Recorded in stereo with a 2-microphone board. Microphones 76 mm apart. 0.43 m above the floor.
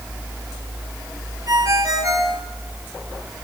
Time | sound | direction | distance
1.5 | a ringtone | 50° right (ahead or behind) | 3.5 m